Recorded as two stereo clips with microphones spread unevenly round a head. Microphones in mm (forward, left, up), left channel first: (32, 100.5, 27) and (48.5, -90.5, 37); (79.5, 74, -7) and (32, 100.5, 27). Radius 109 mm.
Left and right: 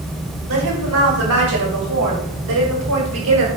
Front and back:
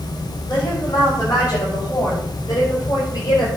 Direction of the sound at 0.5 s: 110° right.